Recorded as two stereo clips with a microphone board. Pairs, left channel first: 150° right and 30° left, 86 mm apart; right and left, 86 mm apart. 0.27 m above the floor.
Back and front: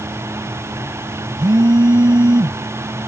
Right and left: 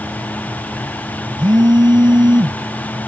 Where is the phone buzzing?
60° left.